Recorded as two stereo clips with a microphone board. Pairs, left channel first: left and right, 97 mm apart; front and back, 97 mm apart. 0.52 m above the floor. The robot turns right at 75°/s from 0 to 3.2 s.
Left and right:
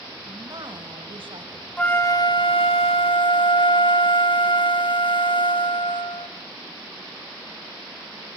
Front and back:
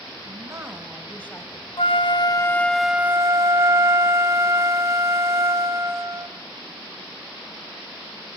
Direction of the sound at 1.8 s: 10° left.